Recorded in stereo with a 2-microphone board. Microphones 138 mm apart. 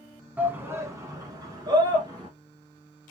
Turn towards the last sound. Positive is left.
turn(degrees=-30)  # may be behind; listen again after turning